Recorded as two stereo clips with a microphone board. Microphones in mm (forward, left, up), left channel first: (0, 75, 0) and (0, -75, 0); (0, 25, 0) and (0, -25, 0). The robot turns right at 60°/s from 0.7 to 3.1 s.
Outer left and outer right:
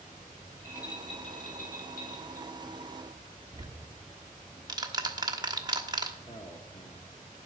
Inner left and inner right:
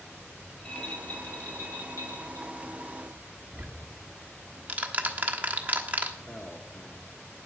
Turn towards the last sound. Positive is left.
turn(degrees=40)  # may be behind; listen again after turning